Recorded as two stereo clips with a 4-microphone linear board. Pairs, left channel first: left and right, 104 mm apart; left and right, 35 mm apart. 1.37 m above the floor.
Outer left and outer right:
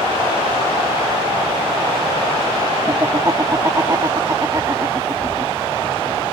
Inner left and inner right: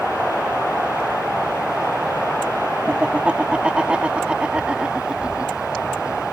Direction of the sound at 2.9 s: 35° right (ahead or behind).